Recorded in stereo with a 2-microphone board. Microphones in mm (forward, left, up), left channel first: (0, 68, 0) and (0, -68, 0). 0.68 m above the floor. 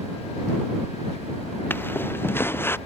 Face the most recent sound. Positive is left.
turn(degrees=15)  # may be behind; listen again after turning